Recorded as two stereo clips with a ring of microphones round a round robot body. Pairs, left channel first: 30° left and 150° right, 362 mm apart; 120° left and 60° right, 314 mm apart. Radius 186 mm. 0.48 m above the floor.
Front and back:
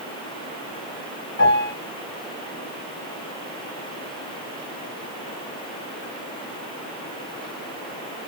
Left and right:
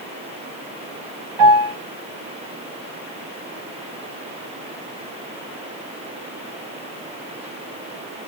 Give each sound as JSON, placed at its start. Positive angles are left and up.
{"t": 1.4, "sound": "a piano", "azimuth_deg": -35, "distance_m": 3.0}